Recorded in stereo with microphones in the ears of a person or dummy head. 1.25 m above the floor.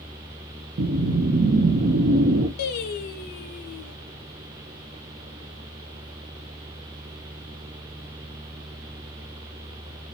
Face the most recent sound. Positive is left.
turn(degrees=60)  # may be behind; listen again after turning